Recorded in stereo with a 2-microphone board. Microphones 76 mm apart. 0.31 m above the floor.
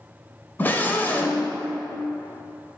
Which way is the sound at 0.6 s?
25° left (ahead or behind).